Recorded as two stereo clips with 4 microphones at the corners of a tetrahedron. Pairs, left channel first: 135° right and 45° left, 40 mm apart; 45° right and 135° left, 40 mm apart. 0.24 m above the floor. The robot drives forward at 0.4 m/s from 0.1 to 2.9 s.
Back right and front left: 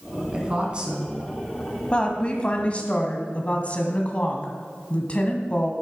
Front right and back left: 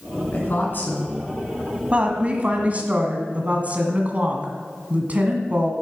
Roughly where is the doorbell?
I don't hear a doorbell.